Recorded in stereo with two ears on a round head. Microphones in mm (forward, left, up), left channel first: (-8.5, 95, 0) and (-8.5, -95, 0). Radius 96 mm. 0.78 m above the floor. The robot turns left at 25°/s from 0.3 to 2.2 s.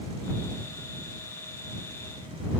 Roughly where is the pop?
I don't hear a pop.